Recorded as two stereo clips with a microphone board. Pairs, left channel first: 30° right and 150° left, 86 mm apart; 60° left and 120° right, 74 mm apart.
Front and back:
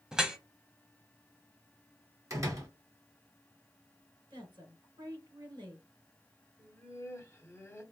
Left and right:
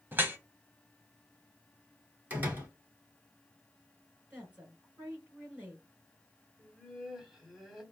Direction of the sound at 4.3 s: 175° left.